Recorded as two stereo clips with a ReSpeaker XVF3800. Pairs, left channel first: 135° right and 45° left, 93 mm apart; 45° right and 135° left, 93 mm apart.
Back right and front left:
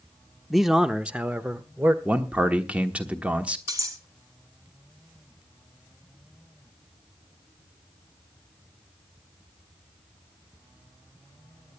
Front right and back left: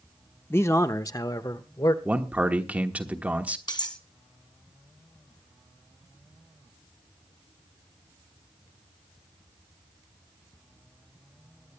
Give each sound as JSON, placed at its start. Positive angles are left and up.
{"t": 0.5, "sound": "a man speaking", "azimuth_deg": -45, "distance_m": 0.7}
{"t": 2.0, "sound": "a man speaking", "azimuth_deg": 95, "distance_m": 1.2}
{"t": 3.7, "sound": "cutlery clinking", "azimuth_deg": -5, "distance_m": 2.0}